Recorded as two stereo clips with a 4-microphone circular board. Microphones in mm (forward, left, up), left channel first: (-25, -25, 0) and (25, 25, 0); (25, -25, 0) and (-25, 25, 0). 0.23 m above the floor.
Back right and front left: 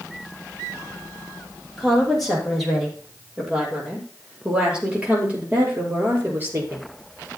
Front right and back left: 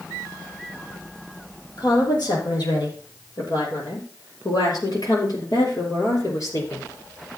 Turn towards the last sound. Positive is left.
turn(degrees=-10)